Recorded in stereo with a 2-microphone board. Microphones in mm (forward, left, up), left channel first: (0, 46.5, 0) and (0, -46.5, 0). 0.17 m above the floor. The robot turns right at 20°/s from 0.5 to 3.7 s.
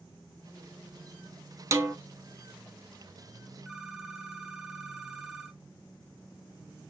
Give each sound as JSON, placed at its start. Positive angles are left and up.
{"t": 1.7, "sound": "a snare drum", "side_deg": -30, "distance_m": 0.7}
{"t": 3.6, "sound": "a phone ringing", "side_deg": -5, "distance_m": 1.2}